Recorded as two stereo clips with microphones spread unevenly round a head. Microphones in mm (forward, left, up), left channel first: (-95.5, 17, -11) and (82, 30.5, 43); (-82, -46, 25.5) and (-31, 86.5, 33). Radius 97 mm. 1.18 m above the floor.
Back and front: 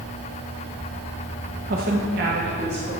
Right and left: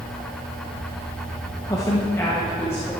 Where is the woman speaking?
45° right, 0.9 m; by 2.9 s 35° right, 2 m.